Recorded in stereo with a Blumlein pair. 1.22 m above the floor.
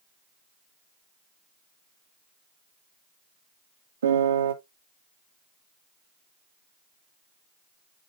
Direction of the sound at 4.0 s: 65° right.